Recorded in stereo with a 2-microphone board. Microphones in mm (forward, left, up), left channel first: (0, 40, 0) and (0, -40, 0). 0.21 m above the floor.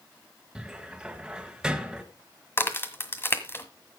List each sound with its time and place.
0.6 s a cupboard door: 10° right (ahead or behind), 1.6 m
2.6 s a crack: 30° left (ahead or behind), 1.7 m